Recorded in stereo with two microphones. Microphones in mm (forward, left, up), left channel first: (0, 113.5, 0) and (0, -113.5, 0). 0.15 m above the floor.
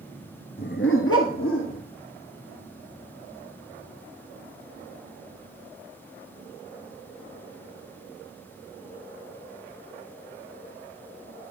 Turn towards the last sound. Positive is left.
turn(degrees=70)  # may be behind; listen again after turning